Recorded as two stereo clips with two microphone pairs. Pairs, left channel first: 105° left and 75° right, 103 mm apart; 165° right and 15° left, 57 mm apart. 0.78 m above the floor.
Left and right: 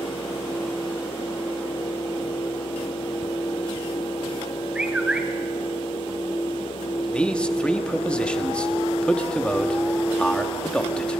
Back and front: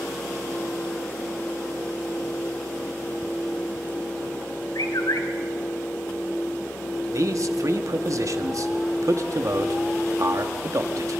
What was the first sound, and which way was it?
A bird, 160° right.